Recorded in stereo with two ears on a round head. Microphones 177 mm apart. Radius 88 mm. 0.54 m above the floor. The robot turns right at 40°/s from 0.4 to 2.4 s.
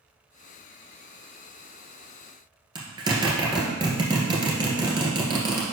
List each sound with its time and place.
2.8 s a zipper: 25° right (ahead or behind), 1.8 m